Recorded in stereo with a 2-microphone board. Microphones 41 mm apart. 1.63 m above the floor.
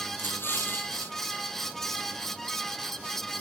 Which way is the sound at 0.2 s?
70° left (ahead or behind).